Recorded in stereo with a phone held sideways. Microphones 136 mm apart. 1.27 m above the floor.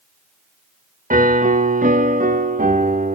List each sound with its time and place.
1.1 s a piano: 75° right (ahead or behind), 1.6 m